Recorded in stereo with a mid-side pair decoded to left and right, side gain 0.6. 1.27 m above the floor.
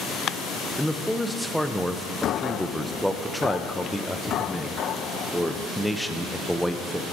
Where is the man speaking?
5° left, 0.6 m.